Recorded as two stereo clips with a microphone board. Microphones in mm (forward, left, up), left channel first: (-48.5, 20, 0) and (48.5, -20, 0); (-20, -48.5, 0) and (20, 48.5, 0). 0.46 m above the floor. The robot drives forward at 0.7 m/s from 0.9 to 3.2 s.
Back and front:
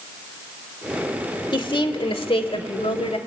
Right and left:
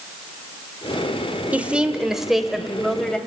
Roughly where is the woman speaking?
Behind left.